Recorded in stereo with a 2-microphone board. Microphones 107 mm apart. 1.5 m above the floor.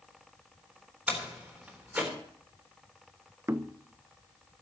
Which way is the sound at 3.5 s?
25° right (ahead or behind).